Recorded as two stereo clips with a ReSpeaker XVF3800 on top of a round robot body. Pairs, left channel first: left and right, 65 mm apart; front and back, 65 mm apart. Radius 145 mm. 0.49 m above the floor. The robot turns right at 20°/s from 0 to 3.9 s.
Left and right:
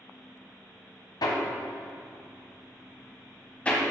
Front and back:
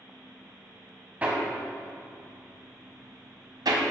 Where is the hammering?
110° left, 1.5 m; by 3.8 s 165° left, 1.5 m.